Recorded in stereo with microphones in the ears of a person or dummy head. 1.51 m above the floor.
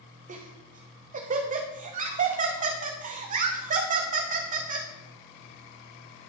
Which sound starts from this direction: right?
Laughter, at 0.3 s.